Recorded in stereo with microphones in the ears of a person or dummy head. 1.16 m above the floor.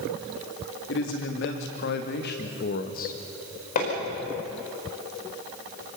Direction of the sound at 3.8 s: 35° left (ahead or behind).